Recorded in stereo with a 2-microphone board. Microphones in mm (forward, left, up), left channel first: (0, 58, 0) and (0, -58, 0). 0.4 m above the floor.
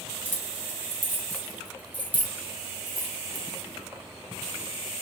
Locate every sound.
0.2 s keys jangling: 15° left (ahead or behind), 1.3 m